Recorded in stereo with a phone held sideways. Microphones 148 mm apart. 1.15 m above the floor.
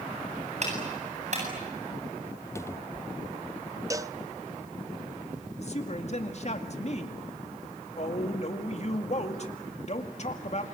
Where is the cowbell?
20° right (ahead or behind), 0.7 m.